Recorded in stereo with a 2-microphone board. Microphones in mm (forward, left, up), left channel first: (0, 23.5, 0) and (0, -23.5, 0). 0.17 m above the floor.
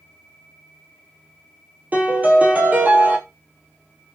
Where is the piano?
35° right (ahead or behind), 1.0 m.